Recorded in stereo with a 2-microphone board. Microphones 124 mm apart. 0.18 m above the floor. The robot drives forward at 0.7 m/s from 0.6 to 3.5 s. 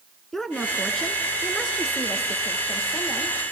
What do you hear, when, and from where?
0.3 s a woman speaking: 5° left (ahead or behind), 1.9 m; by 3.4 s centre (ahead or behind), 3.5 m